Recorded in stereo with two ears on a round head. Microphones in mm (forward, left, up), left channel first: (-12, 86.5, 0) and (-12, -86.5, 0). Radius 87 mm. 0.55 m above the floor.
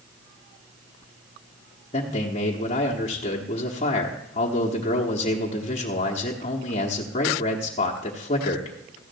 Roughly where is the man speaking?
Left.